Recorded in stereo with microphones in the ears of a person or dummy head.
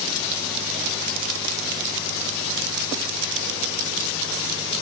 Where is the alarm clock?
I don't hear an alarm clock.